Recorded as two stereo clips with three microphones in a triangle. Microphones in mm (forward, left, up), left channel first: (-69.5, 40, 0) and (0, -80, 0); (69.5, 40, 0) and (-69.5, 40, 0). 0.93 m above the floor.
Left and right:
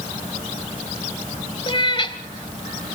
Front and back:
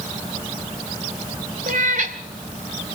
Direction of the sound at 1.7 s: 170° left.